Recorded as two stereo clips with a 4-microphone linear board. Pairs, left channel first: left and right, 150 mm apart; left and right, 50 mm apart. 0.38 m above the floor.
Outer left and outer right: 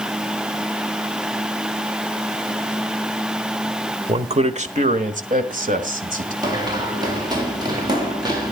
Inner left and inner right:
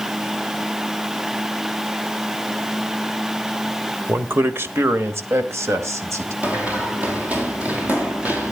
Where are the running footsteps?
25° right (ahead or behind), 4 m.